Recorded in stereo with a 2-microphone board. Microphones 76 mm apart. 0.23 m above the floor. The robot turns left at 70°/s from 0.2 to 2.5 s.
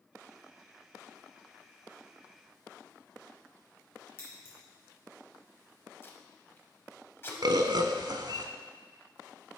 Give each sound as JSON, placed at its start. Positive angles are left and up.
{"t": 4.2, "sound": "scissors", "side_deg": 35, "distance_m": 2.5}
{"t": 6.0, "sound": "tape being pulled", "side_deg": 30, "distance_m": 0.9}
{"t": 7.4, "sound": "a bird", "side_deg": -65, "distance_m": 0.5}